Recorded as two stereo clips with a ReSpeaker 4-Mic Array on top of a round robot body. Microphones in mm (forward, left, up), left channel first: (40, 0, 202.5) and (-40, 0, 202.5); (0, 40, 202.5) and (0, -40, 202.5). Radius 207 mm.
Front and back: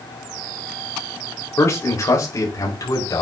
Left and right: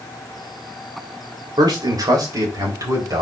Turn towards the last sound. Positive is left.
turn(degrees=-40)